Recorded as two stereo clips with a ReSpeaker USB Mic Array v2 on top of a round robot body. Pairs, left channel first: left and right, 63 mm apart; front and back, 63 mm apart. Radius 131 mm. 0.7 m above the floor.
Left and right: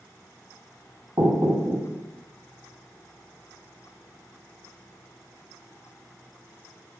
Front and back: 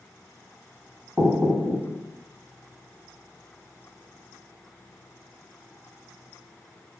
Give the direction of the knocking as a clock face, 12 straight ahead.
4 o'clock.